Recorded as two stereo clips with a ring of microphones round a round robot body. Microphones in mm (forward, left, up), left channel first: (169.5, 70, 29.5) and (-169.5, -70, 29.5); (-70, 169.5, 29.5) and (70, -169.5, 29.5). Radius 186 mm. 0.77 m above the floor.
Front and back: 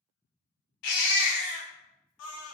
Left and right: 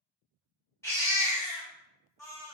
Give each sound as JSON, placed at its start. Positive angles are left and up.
{"t": 0.8, "sound": "a baby crying", "azimuth_deg": 30, "distance_m": 0.5}